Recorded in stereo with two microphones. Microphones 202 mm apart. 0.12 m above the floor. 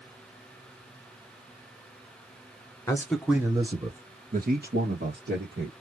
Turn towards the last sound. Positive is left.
turn(degrees=-65)  # may be behind; listen again after turning